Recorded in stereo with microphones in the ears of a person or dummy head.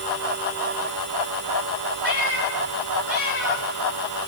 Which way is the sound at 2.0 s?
65° right (ahead or behind).